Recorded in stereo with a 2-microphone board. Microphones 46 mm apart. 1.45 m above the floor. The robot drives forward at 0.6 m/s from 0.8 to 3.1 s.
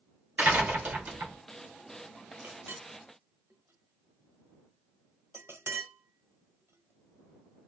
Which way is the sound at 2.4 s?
65° right (ahead or behind).